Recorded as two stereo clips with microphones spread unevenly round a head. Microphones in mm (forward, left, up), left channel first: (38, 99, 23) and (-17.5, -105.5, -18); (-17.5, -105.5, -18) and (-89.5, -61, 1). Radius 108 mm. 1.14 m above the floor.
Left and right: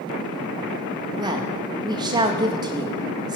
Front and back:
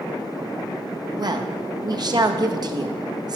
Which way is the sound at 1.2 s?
170° right.